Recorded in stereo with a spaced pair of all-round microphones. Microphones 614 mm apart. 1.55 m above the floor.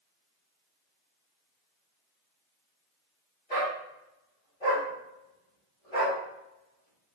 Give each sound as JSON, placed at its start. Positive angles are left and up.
{"t": 3.5, "sound": "a dog barking", "side_deg": 75, "distance_m": 4.0}